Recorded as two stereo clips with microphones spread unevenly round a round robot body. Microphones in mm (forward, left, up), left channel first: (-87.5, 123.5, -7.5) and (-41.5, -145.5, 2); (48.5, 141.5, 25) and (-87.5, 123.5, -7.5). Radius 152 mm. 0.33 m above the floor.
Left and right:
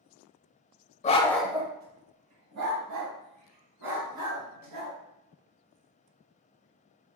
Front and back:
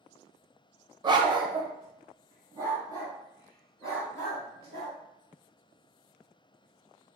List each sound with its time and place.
1.0 s a dog barking: 155° left, 0.6 m; by 5.0 s 85° right, 2.5 m